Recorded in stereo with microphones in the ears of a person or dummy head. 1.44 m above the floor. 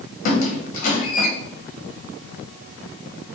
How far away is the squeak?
About 1.0 m.